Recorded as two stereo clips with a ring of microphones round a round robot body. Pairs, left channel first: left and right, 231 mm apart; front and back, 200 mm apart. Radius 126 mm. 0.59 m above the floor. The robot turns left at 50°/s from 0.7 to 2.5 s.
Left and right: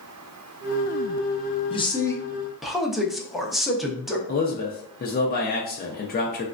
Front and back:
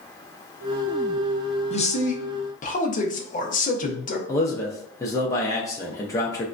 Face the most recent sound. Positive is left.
turn(degrees=65)